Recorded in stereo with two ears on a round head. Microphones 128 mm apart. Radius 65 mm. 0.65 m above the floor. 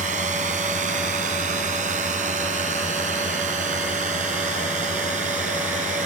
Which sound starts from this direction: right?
A drone, at 0.0 s.